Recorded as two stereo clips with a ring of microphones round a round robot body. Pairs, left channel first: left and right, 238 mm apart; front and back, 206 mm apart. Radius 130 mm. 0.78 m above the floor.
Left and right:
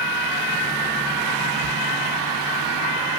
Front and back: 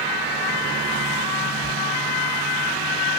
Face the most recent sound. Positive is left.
turn(degrees=-55)